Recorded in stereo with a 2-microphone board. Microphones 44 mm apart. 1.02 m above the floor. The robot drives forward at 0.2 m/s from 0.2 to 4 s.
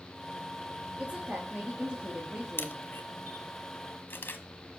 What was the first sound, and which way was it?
A woman speaking, 25° right (ahead or behind).